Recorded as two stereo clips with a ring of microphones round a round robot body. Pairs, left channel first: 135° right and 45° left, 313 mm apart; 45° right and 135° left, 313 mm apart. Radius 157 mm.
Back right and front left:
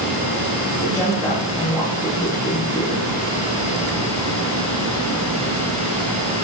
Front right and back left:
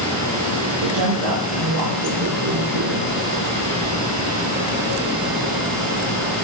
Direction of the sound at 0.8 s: 145° left.